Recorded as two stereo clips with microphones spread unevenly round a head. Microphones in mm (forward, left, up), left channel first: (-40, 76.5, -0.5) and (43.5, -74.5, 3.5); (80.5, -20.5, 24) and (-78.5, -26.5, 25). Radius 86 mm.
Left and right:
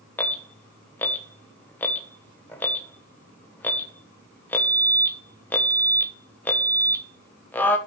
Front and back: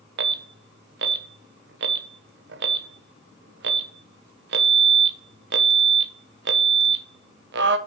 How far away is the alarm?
About 1.0 m.